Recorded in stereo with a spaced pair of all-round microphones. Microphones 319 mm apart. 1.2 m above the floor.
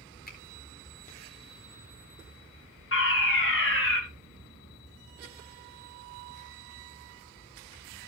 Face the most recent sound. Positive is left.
turn(degrees=40)  # may be behind; listen again after turning